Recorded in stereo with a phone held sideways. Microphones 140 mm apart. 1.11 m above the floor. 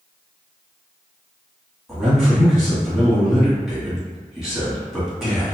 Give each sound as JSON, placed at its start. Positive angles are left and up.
{"t": 1.9, "sound": "a man speaking", "side_deg": 0, "distance_m": 1.6}